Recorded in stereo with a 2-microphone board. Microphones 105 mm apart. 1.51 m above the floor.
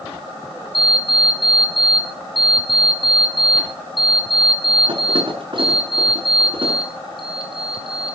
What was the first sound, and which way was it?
An alarm clock, 55° right (ahead or behind).